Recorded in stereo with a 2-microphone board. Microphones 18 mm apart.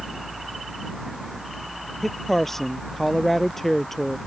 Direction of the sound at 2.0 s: 20° left (ahead or behind).